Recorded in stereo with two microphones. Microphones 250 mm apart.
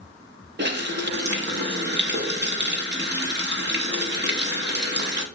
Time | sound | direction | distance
0.6 | a running tap | 45° right (ahead or behind) | 0.8 m